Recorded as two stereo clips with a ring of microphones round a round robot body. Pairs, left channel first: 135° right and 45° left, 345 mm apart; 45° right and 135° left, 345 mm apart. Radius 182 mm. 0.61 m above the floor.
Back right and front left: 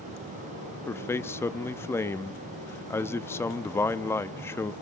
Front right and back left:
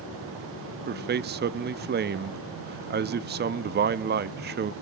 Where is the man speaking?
150° left, 0.6 m.